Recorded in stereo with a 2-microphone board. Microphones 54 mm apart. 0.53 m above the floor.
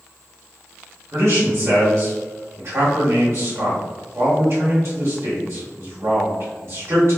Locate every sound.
1.1 s a man speaking: 40° right (ahead or behind), 1.2 m